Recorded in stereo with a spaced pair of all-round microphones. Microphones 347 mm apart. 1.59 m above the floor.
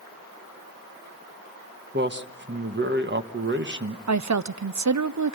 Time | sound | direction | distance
1.9 | a man speaking | 30° right (ahead or behind) | 1.2 m
4.1 | a woman speaking | 55° right (ahead or behind) | 0.6 m